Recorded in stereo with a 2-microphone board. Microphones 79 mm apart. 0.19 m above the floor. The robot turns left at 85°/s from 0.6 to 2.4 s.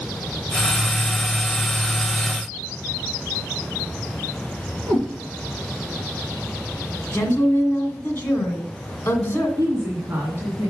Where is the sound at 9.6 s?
35° right (ahead or behind), 2 m.